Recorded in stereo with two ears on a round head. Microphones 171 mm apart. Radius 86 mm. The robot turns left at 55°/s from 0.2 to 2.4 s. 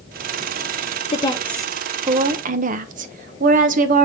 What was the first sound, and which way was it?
A woman speaking, 30° left.